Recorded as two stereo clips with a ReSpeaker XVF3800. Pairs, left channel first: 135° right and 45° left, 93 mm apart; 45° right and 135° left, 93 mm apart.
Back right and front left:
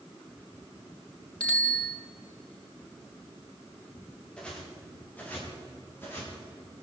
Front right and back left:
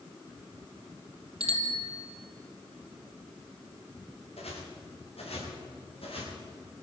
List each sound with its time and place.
1.4 s a bicycle bell: 150° left, 4.5 m
4.4 s footsteps: 55° right, 7.5 m; by 6.3 s 70° right, 9.5 m